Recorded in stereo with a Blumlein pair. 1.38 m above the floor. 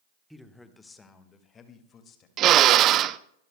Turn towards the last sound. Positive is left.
turn(degrees=-30)